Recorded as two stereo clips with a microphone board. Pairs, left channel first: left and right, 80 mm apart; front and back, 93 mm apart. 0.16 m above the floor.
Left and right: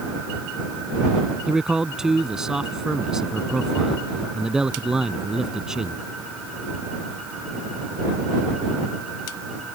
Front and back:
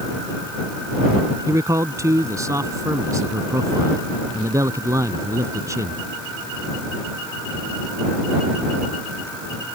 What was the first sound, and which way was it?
A man speaking, 165° right.